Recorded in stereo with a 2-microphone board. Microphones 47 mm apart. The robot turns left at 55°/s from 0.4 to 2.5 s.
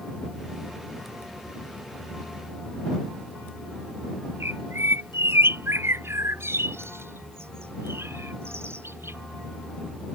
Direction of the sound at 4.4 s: 65° right (ahead or behind).